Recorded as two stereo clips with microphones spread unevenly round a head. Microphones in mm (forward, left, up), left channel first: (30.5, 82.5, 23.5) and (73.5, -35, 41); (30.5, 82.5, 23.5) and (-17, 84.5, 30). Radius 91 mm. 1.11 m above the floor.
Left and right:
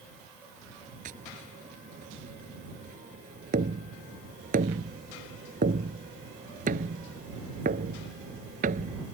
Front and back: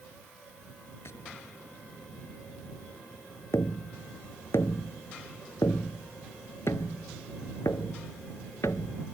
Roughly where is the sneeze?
I don't hear a sneeze.